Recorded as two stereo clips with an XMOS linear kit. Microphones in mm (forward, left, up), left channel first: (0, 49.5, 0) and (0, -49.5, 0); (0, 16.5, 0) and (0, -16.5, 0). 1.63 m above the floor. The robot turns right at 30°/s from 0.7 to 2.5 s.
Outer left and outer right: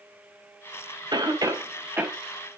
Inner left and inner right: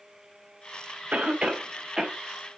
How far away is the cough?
About 1.8 m.